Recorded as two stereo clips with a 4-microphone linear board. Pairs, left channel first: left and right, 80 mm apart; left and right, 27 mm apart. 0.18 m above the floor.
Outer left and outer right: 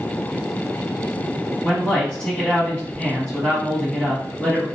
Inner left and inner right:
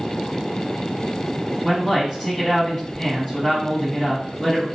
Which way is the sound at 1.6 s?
10° left (ahead or behind).